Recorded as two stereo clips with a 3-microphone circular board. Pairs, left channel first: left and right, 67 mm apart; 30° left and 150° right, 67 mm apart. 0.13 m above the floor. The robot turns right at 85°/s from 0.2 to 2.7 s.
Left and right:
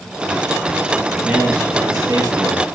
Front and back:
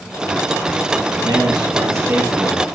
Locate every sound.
1.2 s a man speaking: 170° right, 3 m; by 2.6 s 45° right, 3 m